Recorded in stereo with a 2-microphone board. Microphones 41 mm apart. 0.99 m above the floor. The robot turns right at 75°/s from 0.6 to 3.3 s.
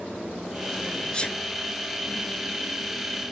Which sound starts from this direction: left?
A sneeze, at 1.1 s.